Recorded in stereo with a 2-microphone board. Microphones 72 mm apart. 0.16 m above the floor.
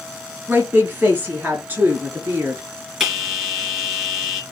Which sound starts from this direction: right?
A woman speaking, at 0.5 s.